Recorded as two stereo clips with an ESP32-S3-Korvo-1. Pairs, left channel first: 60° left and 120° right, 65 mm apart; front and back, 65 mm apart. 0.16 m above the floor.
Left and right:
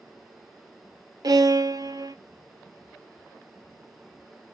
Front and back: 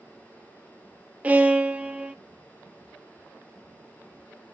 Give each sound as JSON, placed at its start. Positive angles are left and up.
{"t": 1.2, "sound": "a violin", "azimuth_deg": -110, "distance_m": 0.6}